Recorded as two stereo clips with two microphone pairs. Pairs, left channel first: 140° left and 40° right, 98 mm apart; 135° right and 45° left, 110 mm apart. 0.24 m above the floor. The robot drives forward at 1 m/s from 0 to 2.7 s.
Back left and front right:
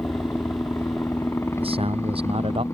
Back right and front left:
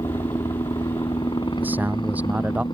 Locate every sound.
0.0 s a helicopter: 165° right
1.6 s a man speaking: 30° right; by 2.6 s 35° right